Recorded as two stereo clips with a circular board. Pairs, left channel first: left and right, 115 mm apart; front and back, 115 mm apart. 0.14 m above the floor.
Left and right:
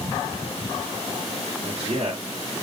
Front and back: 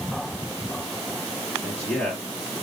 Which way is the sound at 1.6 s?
75° right.